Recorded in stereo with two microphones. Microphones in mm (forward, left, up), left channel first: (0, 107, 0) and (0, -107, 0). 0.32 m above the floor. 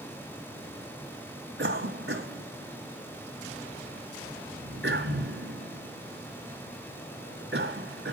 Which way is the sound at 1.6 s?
60° right (ahead or behind).